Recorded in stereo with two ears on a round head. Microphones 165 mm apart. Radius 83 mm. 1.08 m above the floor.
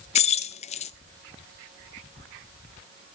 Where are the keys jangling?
35° left (ahead or behind), 0.5 m.